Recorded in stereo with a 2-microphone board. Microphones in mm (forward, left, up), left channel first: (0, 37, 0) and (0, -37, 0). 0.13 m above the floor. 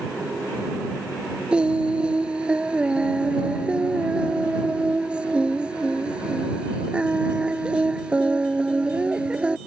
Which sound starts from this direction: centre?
Singing, at 1.5 s.